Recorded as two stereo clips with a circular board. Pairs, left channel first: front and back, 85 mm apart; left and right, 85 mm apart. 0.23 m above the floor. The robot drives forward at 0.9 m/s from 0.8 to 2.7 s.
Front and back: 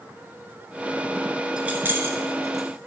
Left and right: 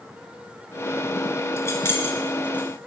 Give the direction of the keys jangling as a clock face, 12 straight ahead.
8 o'clock.